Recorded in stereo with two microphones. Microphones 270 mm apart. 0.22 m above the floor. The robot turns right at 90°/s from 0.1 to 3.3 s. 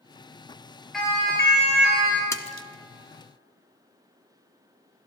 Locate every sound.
0.9 s a siren: centre (ahead or behind), 4 m; by 2.2 s 40° left (ahead or behind), 3 m
2.3 s a splash: 10° left (ahead or behind), 0.9 m; by 2.7 s 40° left (ahead or behind), 0.9 m